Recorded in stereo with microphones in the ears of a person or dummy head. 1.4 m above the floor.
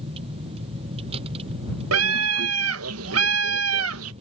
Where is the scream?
85° right.